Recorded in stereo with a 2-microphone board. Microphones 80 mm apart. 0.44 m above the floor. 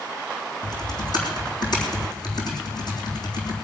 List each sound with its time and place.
0.6 s typing on a keyboard: 60° left (ahead or behind), 3.5 m